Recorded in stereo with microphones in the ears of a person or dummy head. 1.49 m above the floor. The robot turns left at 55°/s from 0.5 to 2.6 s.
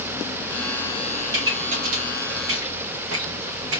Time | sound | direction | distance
1.3 | a pop | 20° right (ahead or behind) | 2.5 m